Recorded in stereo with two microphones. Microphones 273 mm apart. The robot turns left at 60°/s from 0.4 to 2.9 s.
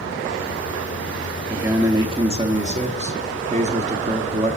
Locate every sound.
1.5 s a man speaking: 5° right (ahead or behind), 0.6 m; by 4.6 s 25° right (ahead or behind), 0.6 m